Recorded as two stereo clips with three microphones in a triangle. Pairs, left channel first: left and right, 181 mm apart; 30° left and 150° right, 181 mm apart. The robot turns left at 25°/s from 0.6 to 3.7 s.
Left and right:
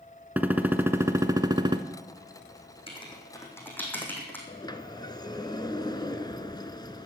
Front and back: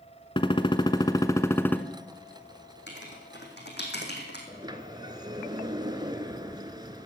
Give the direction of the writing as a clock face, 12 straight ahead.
11 o'clock.